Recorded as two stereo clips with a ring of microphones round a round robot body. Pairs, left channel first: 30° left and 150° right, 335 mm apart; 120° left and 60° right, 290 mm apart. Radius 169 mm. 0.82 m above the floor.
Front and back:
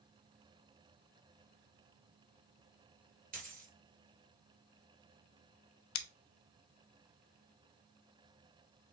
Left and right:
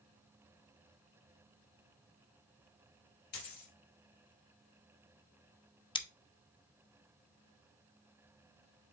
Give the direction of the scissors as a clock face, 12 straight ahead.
10 o'clock.